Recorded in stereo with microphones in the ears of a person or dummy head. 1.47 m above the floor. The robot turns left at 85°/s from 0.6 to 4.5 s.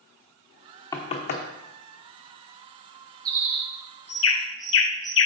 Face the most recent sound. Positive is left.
turn(degrees=75)